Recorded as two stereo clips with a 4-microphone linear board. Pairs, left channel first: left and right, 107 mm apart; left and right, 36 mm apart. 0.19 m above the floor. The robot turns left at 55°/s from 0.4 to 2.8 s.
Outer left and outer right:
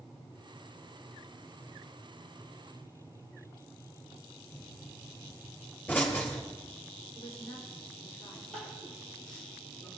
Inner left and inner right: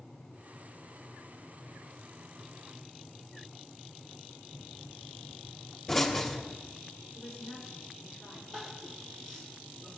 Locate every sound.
4.5 s a pop: 15° left (ahead or behind), 3 m
7.2 s a woman speaking: 30° left (ahead or behind), 6 m
8.5 s crying: 10° left (ahead or behind), 4.5 m